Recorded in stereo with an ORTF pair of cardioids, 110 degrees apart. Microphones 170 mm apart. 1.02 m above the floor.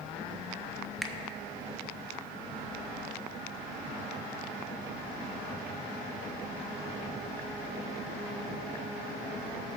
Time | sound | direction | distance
1.0 | a finger snap | straight ahead | 0.9 m